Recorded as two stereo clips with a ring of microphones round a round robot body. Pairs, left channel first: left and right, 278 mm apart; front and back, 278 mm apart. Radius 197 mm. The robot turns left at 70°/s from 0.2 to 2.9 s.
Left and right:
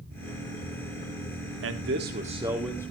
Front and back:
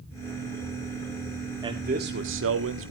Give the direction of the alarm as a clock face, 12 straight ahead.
No alarm in this recording.